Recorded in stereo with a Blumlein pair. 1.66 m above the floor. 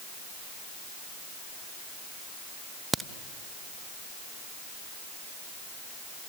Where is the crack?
10° right, 0.6 m.